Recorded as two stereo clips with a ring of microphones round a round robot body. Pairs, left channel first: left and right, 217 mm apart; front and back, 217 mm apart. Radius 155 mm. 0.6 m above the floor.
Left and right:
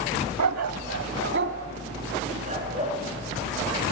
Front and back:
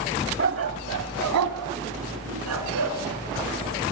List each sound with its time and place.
0.4 s a dog barking: 120° right, 0.9 m; by 3.0 s 160° right, 2.5 m